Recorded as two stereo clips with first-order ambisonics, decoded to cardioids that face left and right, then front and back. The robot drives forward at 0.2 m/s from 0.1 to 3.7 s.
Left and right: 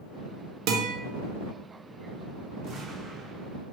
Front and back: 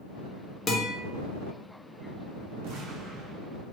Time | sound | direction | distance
0.7 | a guitar | 70° right | 0.6 m
2.6 | an explosion | 150° right | 0.6 m